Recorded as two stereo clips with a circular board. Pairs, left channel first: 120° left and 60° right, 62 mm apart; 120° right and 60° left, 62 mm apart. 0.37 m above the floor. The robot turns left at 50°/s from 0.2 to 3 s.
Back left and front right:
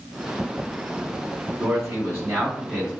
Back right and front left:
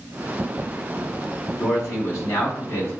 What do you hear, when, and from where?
1.6 s a man speaking: 70° right, 2.0 m; by 2.9 s 135° right, 2.0 m